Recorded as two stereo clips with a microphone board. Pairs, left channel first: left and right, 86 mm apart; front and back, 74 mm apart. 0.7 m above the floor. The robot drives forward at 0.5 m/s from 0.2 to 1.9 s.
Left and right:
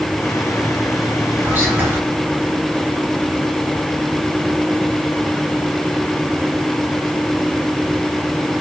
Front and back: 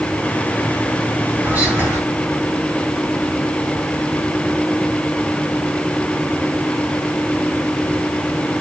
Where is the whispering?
135° right, 1.3 m; by 2.0 s 150° right, 1.4 m.